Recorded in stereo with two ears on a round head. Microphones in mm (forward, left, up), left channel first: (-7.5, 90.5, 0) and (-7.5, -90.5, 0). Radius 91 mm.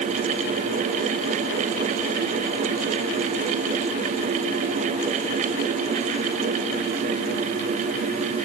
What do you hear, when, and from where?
Only background noise.